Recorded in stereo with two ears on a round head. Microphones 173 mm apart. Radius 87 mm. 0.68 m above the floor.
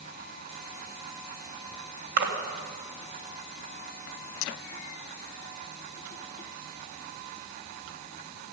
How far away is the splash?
About 2 m.